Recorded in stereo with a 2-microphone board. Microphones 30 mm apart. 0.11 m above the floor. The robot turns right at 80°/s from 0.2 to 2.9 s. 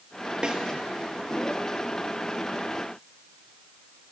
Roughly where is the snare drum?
Right.